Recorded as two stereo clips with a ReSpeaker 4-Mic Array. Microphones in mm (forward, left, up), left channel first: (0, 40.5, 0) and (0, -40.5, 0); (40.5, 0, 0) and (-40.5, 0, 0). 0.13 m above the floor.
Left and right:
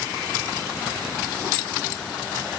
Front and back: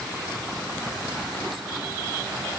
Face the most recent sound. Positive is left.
No sound to turn to.